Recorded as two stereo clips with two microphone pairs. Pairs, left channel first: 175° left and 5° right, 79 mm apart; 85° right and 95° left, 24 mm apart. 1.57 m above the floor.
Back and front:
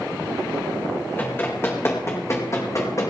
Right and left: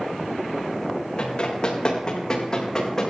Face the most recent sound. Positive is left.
turn(degrees=-145)